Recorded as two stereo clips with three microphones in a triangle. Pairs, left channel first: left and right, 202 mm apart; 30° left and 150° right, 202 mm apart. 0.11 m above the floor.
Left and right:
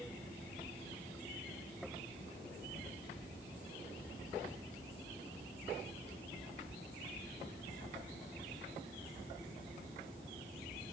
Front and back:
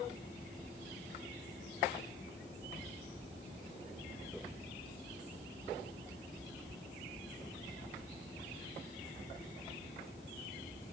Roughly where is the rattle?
I don't hear a rattle.